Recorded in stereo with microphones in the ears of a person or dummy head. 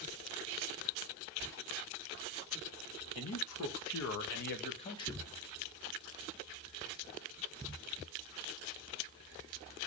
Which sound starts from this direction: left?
A man speaking, at 3.1 s.